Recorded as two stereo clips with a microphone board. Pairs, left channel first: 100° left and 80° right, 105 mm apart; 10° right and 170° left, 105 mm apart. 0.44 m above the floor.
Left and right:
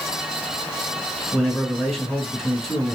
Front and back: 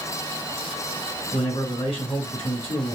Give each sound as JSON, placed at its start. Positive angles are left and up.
{"t": 1.3, "sound": "a man speaking", "azimuth_deg": 5, "distance_m": 2.5}